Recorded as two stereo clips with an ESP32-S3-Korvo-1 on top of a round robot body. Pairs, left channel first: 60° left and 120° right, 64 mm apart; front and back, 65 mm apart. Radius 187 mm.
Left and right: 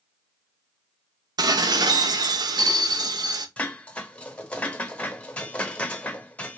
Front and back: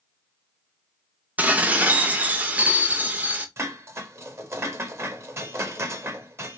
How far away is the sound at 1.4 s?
About 0.7 m.